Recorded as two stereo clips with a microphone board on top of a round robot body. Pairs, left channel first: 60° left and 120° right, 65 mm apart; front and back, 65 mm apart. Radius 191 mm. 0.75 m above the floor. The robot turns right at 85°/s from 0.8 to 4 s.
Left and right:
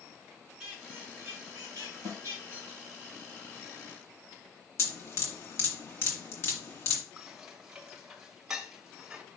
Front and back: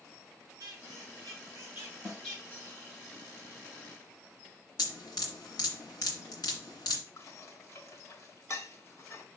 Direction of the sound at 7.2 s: 40° right.